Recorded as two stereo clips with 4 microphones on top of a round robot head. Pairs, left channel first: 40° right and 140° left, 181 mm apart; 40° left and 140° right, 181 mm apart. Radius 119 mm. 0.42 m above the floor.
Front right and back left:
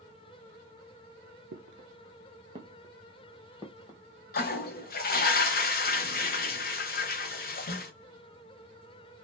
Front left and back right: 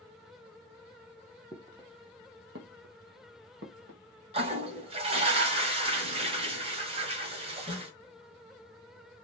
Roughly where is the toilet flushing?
Right.